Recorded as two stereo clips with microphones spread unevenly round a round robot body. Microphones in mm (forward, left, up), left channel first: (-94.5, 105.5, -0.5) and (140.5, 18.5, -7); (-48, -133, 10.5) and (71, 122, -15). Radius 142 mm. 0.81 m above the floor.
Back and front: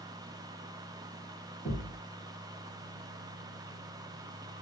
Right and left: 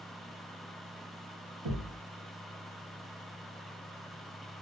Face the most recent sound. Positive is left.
turn(degrees=80)